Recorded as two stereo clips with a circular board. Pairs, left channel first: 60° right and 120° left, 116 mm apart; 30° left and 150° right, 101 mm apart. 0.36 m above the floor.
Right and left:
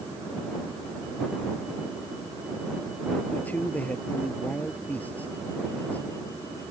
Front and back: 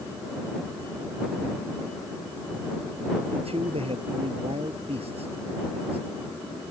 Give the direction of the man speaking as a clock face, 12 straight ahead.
5 o'clock.